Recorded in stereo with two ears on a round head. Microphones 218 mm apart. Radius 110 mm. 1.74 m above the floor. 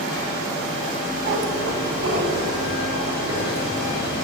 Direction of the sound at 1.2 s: 55° right (ahead or behind).